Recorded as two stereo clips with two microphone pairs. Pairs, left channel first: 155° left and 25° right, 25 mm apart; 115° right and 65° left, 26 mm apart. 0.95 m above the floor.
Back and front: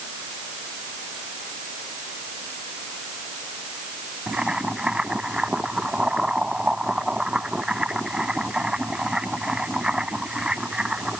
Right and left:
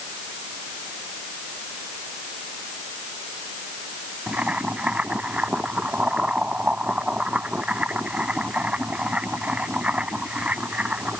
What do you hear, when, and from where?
4.3 s boiling: 30° left